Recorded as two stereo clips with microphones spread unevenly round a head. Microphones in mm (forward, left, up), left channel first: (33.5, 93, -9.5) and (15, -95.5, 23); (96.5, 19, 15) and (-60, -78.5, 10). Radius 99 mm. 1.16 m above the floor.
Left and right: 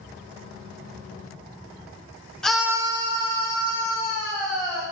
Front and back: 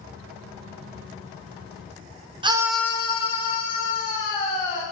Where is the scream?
160° left, 0.7 m; by 4.8 s 25° right, 3 m.